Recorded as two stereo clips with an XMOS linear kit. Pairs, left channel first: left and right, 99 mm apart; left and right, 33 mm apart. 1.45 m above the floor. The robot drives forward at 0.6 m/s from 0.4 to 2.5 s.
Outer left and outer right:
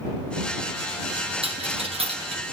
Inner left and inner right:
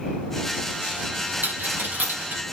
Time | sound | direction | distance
1.4 | a dropped coin | 75° right (ahead or behind) | 5 m